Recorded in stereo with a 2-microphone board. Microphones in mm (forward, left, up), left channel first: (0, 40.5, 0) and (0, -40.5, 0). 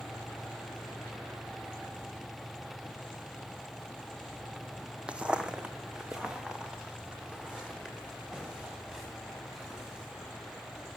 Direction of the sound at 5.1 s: 15° right (ahead or behind).